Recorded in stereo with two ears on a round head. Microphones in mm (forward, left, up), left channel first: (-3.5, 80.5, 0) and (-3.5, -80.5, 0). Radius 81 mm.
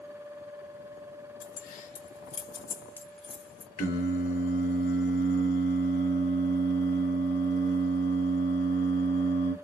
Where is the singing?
40° left (ahead or behind), 0.8 m.